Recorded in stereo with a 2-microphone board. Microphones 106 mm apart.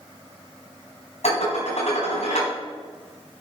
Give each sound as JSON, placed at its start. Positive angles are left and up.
{"t": 1.2, "sound": "dishes clattering", "side_deg": 80, "distance_m": 4.0}